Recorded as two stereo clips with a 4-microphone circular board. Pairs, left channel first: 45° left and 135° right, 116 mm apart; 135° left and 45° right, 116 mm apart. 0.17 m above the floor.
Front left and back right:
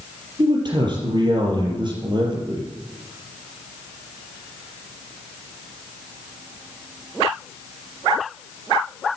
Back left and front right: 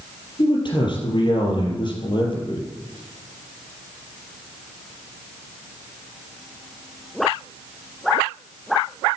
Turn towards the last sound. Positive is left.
turn(degrees=180)